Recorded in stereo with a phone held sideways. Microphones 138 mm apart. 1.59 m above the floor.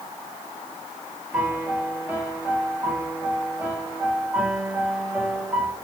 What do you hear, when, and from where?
1.3 s a piano: 10° right (ahead or behind), 2 m